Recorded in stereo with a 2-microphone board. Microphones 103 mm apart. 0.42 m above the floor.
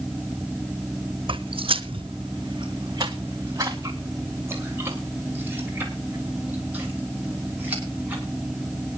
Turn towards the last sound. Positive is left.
turn(degrees=-15)  # may be behind; listen again after turning